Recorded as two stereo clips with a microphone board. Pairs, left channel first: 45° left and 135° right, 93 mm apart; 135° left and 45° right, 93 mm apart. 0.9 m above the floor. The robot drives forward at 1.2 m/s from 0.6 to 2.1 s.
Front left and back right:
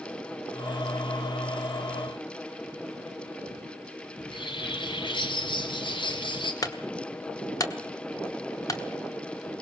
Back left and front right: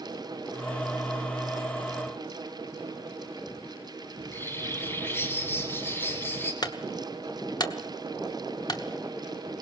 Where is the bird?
70° left, 2 m.